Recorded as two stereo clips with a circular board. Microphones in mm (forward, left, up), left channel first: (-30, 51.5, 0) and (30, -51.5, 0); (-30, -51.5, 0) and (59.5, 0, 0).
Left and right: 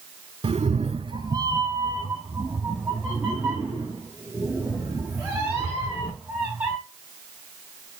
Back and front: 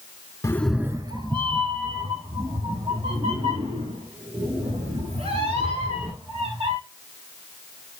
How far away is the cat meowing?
About 0.6 m.